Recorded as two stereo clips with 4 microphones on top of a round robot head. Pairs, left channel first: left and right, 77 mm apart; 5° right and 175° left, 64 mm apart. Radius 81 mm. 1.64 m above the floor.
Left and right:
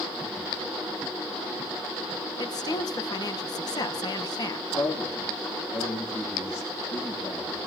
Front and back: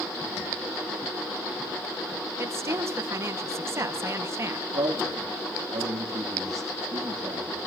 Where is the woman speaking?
130° left, 1.8 m.